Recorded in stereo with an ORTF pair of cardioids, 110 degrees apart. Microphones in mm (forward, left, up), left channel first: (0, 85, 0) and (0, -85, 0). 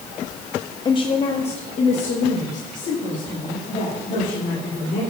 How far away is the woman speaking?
About 0.6 m.